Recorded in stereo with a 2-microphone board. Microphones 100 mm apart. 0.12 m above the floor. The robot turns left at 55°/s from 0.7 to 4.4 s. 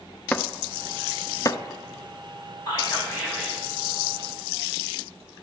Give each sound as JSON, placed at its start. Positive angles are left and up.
{"t": 0.3, "sound": "chopping", "side_deg": 15, "distance_m": 0.5}
{"t": 2.7, "sound": "whispering", "azimuth_deg": 50, "distance_m": 5.0}